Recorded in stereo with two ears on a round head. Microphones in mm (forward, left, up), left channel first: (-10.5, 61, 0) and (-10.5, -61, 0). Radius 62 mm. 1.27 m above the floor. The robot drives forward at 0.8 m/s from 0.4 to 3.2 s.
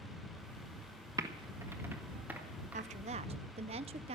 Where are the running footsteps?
No running footsteps in this recording.